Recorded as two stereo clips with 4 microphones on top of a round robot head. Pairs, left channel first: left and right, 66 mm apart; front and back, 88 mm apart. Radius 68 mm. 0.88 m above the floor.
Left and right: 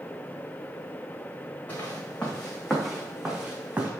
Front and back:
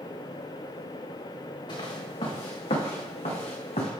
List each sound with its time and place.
1.7 s footsteps: 25° left, 3 m; by 3.9 s 25° right, 3 m